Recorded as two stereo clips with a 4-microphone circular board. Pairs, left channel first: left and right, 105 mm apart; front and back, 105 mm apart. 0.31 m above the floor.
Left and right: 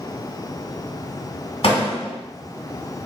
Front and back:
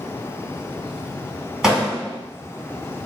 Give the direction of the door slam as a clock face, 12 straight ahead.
9 o'clock.